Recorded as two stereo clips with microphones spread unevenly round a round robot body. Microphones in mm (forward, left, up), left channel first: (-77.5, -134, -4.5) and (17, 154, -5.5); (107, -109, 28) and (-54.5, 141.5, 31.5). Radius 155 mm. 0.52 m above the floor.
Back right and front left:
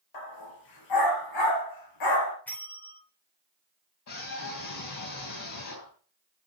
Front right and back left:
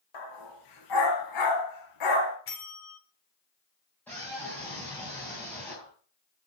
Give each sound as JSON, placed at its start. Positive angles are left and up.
{"t": 0.1, "sound": "a dog barking", "azimuth_deg": -80, "distance_m": 3.5}
{"t": 2.5, "sound": "a bell", "azimuth_deg": -25, "distance_m": 2.0}
{"t": 4.1, "sound": "a scream", "azimuth_deg": -140, "distance_m": 3.5}